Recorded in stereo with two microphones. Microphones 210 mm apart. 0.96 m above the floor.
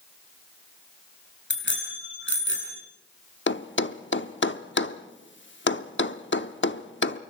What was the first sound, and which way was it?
A bicycle bell, 60° left (ahead or behind).